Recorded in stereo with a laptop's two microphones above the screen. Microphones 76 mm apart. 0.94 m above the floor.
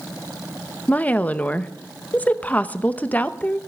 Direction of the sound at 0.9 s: 20° left (ahead or behind).